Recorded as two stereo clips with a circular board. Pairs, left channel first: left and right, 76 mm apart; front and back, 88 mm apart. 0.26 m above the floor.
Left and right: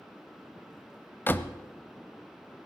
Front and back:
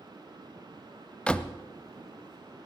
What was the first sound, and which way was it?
A door slam, 65° left.